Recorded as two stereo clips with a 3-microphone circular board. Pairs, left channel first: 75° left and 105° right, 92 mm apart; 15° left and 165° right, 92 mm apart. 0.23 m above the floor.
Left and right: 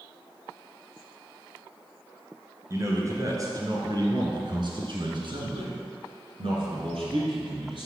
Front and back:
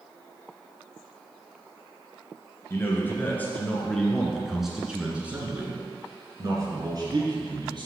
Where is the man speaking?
45° right, 3 m; by 7.9 s 130° right, 3.5 m.